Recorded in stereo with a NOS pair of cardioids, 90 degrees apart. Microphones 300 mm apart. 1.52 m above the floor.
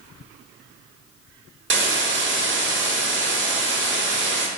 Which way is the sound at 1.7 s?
40° right.